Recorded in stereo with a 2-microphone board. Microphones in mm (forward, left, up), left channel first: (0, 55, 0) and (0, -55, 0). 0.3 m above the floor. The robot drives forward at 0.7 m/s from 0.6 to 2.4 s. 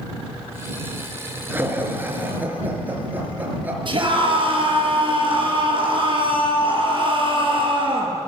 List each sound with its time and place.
1.5 s laughter: 20° right (ahead or behind), 4 m; by 3.8 s 15° right (ahead or behind), 4.5 m
3.9 s a scream: 45° right (ahead or behind), 7 m